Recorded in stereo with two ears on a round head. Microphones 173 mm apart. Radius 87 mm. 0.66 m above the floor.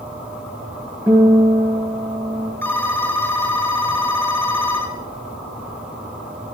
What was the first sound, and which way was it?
A guitar, 10° right (ahead or behind).